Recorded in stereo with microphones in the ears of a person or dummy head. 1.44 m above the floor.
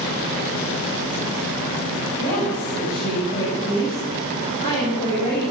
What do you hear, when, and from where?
2.2 s a woman speaking: 40° left (ahead or behind), 9.5 m